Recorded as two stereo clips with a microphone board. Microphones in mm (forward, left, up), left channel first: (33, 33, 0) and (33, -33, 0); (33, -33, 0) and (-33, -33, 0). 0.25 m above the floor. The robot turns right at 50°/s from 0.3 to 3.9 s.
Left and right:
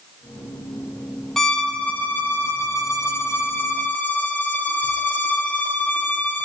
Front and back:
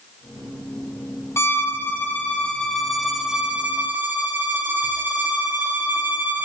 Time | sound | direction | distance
1.4 | a violin | 10° left | 1.6 m